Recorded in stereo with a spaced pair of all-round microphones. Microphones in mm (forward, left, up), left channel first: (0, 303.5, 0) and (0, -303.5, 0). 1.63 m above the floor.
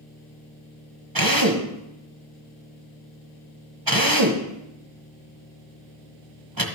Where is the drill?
35° right (ahead or behind), 1.3 m.